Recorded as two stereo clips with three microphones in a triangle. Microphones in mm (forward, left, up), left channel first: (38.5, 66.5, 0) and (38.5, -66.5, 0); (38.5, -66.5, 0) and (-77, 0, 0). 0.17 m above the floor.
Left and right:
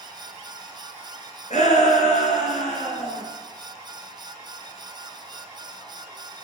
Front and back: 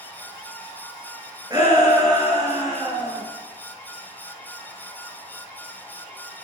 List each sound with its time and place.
1.5 s a shout: 95° left, 2.5 m